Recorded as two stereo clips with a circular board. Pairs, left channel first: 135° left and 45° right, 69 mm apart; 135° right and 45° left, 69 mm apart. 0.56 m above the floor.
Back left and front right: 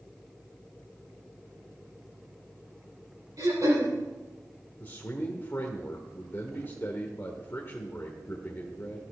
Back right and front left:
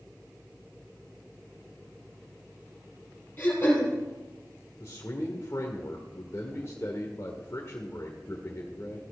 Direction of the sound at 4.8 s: 175° right.